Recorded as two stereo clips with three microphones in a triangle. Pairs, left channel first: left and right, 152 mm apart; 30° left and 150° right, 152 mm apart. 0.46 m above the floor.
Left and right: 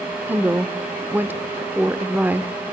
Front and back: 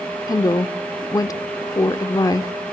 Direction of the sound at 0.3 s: 20° right.